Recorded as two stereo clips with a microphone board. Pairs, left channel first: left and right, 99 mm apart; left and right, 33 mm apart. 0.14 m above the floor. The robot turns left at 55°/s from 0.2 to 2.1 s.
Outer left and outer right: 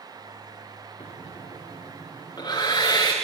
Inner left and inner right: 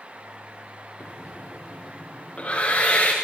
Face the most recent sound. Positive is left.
turn(degrees=40)  # may be behind; listen again after turning